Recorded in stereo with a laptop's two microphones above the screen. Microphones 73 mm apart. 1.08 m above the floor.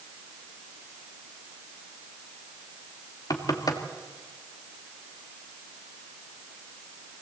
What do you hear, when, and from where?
3.3 s knocking: 60° left (ahead or behind), 1.7 m